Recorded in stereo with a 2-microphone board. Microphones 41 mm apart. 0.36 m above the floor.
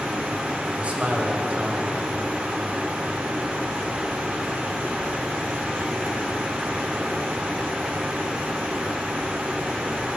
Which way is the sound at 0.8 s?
35° right (ahead or behind).